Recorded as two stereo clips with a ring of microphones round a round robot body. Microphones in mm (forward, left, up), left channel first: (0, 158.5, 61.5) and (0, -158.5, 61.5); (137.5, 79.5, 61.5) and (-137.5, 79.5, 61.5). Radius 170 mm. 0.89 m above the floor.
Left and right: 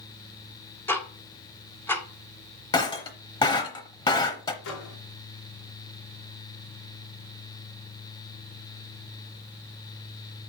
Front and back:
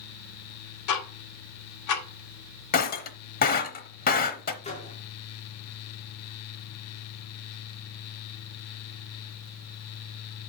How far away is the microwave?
About 2.5 m.